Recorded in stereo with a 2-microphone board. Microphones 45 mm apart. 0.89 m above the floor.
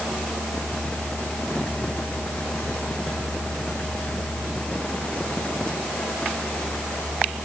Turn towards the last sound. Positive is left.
No sound to turn to.